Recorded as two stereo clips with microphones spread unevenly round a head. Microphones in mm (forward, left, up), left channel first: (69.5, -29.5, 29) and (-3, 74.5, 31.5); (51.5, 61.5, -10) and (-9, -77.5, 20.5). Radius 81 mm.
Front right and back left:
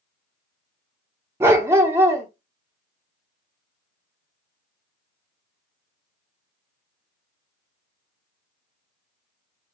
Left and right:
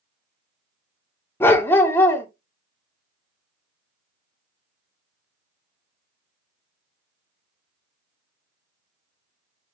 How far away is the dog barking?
About 0.6 m.